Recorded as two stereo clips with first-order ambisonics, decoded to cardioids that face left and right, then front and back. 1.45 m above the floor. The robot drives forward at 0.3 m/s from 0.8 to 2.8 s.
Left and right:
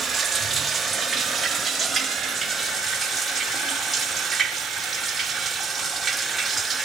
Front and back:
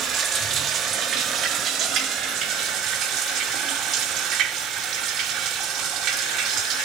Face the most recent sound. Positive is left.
turn(degrees=-170)